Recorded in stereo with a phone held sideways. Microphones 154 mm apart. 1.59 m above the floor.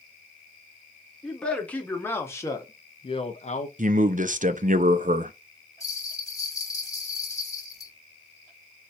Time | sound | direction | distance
1.2 | a man speaking | 5° left (ahead or behind) | 1.6 m
3.8 | a man speaking | 60° right (ahead or behind) | 0.6 m
5.8 | a bell | 25° left (ahead or behind) | 1.3 m